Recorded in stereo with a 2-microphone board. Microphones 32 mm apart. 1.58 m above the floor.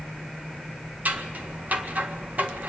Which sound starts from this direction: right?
Scissors, at 1.1 s.